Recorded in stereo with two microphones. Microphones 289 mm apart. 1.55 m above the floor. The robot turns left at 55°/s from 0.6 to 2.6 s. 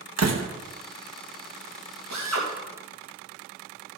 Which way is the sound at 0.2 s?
65° right (ahead or behind).